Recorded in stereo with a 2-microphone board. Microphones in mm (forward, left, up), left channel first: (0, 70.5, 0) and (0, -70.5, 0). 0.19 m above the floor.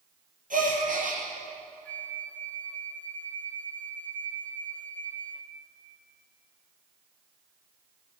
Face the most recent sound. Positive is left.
turn(degrees=10)  # may be behind; listen again after turning